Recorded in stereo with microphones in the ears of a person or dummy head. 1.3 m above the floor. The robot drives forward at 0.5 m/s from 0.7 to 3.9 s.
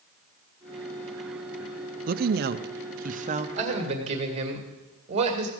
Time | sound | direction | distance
2.1 | a woman speaking | 40° right (ahead or behind) | 0.6 m
3.6 | a man speaking | 35° right (ahead or behind) | 1.9 m